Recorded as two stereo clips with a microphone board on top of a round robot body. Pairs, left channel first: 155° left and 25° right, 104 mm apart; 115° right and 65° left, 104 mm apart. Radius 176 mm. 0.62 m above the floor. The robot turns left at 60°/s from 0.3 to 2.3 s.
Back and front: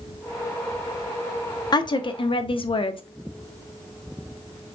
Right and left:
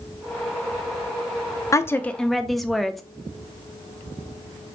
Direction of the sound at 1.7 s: 165° right.